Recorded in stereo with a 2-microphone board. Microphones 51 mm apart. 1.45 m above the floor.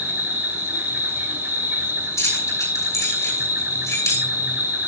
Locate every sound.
0.0 s an insect: 55° right (ahead or behind), 4.5 m
2.2 s keys jangling: 85° left, 9.5 m